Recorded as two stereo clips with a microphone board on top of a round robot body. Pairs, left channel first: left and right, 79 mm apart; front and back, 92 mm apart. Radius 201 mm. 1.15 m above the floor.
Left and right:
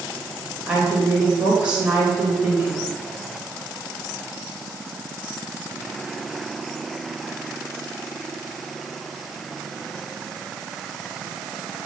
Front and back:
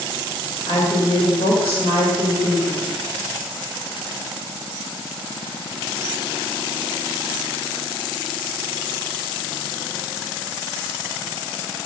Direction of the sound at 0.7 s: 10° right.